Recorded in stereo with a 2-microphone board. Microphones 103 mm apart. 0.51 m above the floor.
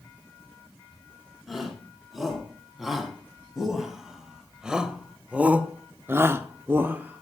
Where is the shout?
Centre (ahead or behind), 5 m; by 7.2 s 15° right (ahead or behind), 1.2 m.